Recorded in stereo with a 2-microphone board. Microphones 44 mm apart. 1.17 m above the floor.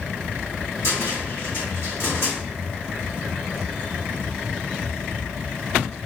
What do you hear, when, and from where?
0.8 s a cupboard door: 85° left, 2.5 m